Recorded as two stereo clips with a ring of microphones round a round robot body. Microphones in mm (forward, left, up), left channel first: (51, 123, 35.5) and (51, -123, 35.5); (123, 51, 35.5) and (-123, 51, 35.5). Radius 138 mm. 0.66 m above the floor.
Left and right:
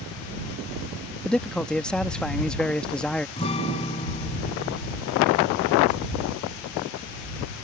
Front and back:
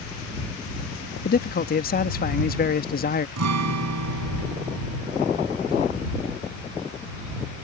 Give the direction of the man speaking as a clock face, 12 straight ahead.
12 o'clock.